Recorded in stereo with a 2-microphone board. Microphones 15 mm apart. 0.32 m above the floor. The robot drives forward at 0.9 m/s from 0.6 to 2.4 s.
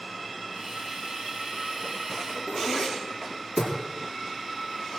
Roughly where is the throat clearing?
Left.